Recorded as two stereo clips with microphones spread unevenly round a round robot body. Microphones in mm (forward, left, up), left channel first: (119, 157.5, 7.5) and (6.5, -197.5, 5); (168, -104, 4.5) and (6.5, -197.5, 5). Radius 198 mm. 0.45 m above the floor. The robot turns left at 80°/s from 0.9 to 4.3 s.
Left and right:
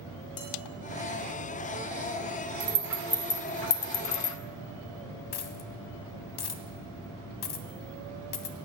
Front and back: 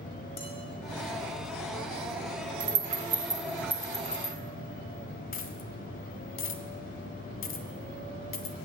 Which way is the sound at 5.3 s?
35° left.